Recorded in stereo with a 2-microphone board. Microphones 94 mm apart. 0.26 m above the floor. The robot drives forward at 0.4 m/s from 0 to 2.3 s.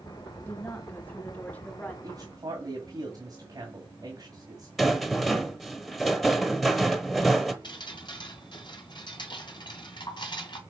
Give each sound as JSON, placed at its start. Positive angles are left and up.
{"t": 0.5, "sound": "a woman speaking", "side_deg": 20, "distance_m": 1.3}
{"t": 2.0, "sound": "a man speaking", "side_deg": -40, "distance_m": 2.0}
{"t": 4.8, "sound": "a rattle", "side_deg": 0, "distance_m": 1.1}
{"t": 7.6, "sound": "dripping", "side_deg": 55, "distance_m": 1.9}